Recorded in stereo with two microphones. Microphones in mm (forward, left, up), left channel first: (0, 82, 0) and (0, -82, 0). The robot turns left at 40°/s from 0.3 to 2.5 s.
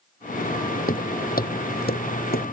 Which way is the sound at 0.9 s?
65° left (ahead or behind).